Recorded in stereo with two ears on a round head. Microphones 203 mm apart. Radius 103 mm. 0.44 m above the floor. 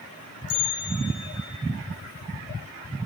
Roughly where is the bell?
Left.